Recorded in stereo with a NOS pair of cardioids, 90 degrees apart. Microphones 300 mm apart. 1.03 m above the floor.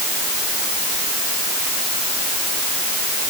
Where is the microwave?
No microwave in this recording.